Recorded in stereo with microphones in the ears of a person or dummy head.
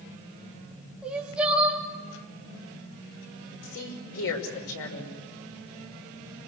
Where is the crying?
5° right (ahead or behind), 3.5 m.